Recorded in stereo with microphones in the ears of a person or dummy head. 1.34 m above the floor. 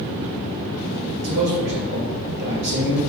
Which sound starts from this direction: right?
A man speaking, at 1.2 s.